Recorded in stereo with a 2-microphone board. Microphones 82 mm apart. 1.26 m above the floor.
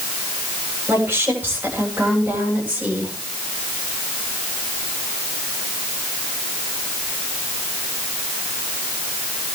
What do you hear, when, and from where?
0.9 s a woman speaking: 25° right (ahead or behind), 8 m; by 3.1 s 15° right (ahead or behind), 8 m